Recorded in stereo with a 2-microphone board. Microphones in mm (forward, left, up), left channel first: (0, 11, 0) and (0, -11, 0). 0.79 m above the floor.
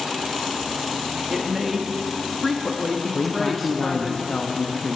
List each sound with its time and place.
1.3 s a woman speaking: centre (ahead or behind), 0.8 m
3.1 s a man speaking: 55° left (ahead or behind), 0.7 m